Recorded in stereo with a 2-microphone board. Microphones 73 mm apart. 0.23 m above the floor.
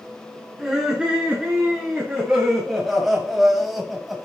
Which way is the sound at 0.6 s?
Centre (ahead or behind).